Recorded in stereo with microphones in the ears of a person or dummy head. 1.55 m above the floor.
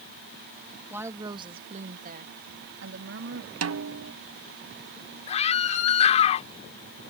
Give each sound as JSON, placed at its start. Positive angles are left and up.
{"t": 0.9, "sound": "a woman speaking", "side_deg": -15}
{"t": 3.6, "sound": "a snare drum", "side_deg": -75}
{"t": 5.3, "sound": "a scream", "side_deg": 40}